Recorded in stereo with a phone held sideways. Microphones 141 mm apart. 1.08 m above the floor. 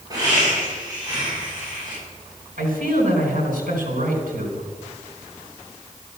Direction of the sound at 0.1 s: 25° right (ahead or behind).